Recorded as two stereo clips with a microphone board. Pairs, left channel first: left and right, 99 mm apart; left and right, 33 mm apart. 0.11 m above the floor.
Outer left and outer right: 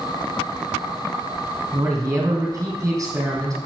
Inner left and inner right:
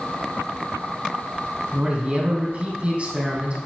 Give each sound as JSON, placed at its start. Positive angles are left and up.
{"t": 1.7, "sound": "a man speaking", "side_deg": -30, "distance_m": 4.0}